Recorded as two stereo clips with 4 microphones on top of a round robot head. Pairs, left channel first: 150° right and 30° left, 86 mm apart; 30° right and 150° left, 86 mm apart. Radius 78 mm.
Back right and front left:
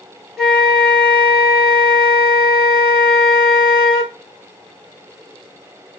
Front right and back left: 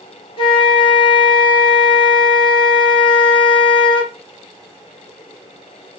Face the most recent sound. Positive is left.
turn(degrees=-60)